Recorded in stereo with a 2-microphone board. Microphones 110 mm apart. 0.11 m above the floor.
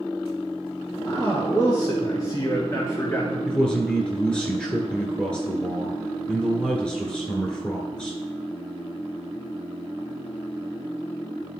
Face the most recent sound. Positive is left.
turn(degrees=10)  # may be behind; listen again after turning